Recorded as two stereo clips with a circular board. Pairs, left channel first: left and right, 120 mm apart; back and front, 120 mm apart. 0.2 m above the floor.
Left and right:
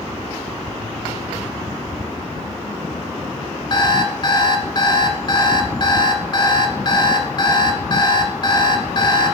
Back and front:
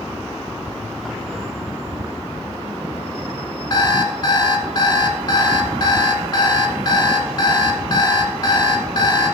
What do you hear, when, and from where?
3.7 s an alarm clock: 135° left, 1.2 m